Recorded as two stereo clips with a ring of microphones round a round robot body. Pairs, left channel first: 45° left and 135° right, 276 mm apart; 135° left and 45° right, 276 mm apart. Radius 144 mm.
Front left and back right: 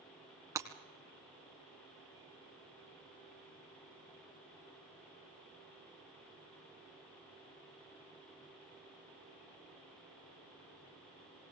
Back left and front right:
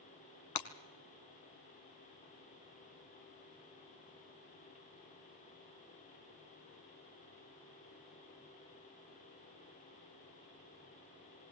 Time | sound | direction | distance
0.6 | breaking glass | 145° left | 1.2 m